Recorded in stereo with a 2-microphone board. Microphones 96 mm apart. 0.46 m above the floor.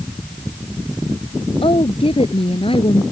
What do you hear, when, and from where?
1.6 s a woman speaking: 65° left (ahead or behind)